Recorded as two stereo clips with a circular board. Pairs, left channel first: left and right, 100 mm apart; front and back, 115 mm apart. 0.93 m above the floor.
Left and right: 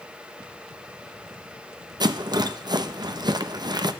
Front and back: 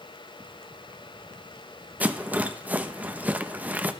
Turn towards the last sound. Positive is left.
turn(degrees=-110)